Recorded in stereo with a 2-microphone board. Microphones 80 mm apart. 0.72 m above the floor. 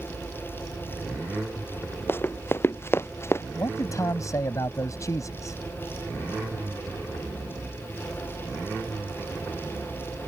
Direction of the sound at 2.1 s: 30° left (ahead or behind).